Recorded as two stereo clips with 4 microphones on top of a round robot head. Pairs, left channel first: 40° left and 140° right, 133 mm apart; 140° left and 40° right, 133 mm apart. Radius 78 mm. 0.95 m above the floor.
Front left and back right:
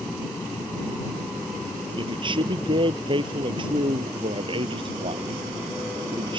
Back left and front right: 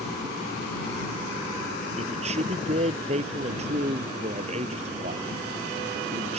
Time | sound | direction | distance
2.0 | a man speaking | 85° right | ?